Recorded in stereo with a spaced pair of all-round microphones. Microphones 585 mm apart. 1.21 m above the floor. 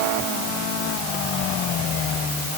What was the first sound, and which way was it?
Only background noise.